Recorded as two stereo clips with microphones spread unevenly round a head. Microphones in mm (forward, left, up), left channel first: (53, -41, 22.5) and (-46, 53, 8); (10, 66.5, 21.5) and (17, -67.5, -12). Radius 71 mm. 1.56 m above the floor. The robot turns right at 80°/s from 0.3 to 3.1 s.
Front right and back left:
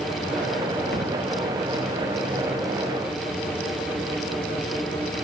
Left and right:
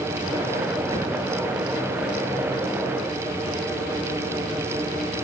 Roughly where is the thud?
Ahead right.